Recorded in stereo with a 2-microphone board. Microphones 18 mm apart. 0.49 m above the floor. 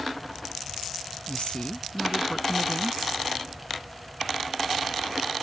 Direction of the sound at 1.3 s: 75° left (ahead or behind).